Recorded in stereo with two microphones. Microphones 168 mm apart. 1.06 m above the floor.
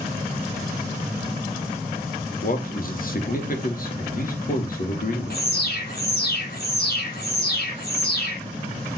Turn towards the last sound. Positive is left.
turn(degrees=70)  # may be behind; listen again after turning